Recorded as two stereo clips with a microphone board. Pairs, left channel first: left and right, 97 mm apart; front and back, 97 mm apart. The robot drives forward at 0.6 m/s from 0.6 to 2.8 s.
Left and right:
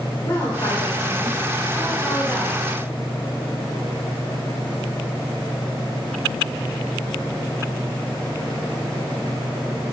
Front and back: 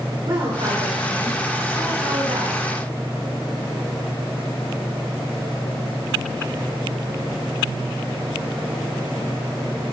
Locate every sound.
0.2 s a woman speaking: 150° left, 2.5 m; by 2.6 s 160° left, 3.5 m